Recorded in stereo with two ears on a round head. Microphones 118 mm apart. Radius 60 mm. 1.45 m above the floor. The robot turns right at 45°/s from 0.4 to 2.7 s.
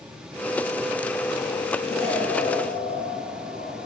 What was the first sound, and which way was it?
An explosion, 30° left.